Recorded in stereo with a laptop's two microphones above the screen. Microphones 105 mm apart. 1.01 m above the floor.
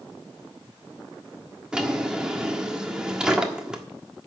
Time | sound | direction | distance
1.7 | a drawer | 10° right (ahead or behind) | 1.4 m